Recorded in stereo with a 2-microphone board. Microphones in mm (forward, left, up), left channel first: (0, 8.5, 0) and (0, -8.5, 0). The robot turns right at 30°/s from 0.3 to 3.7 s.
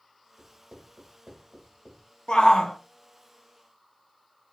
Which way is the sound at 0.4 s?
60° right (ahead or behind).